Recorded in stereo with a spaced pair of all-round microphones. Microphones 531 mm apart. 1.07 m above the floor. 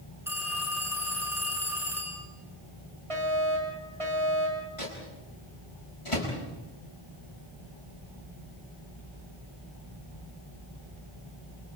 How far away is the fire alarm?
About 9.5 m.